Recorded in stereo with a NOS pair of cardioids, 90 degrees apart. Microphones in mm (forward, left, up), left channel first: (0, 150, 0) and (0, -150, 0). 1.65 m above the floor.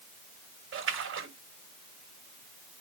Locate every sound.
0.7 s a splash: 45° right, 5.5 m